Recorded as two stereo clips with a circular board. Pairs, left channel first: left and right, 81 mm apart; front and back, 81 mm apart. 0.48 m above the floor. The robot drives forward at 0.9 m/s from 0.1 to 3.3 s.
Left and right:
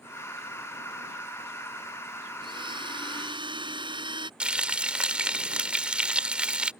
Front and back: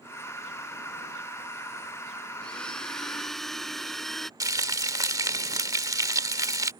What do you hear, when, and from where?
2.4 s a blender: 80° right; by 4.3 s 85° right
4.4 s frying: 165° right